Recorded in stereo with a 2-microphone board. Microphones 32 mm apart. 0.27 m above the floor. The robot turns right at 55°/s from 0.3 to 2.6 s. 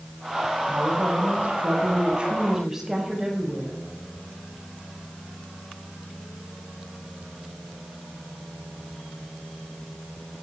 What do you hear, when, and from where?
0.7 s a woman speaking: 115° right, 6.5 m; by 3.7 s 10° right, 6.5 m